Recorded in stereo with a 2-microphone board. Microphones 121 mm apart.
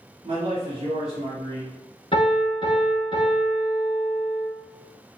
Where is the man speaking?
60° right (ahead or behind), 1.8 m.